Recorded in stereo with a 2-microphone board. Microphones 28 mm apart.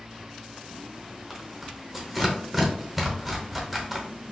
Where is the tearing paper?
5° left (ahead or behind), 0.8 m.